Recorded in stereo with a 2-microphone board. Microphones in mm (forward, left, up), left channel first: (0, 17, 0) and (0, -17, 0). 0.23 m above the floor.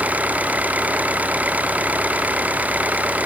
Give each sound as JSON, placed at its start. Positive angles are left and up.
{"t": 0.0, "sound": "an engine running", "side_deg": -50}